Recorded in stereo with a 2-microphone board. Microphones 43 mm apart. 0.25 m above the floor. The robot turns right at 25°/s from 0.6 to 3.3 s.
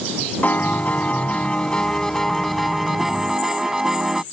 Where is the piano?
125° left; by 4.2 s 165° right.